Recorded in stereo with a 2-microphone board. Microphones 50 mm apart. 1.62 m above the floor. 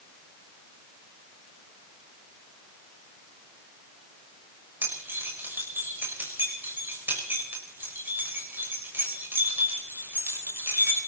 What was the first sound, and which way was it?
Keys jangling, 40° right (ahead or behind).